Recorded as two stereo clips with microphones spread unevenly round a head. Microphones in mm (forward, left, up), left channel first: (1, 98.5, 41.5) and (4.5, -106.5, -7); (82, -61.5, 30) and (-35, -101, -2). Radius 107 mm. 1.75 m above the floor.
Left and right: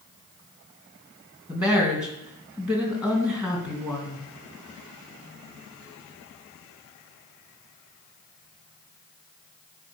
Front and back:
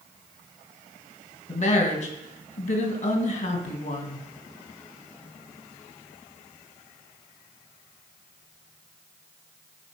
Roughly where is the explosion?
No explosion in this recording.